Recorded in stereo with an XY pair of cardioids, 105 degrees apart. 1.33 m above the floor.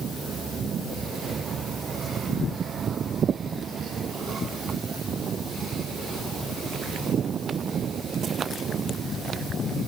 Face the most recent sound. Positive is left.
No sound to turn to.